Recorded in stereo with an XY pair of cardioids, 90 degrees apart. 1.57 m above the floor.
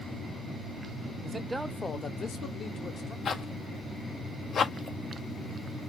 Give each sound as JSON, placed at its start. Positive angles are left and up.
{"t": 1.2, "sound": "a man speaking", "azimuth_deg": -40, "distance_m": 0.8}
{"t": 3.2, "sound": "a zipper", "azimuth_deg": 60, "distance_m": 0.7}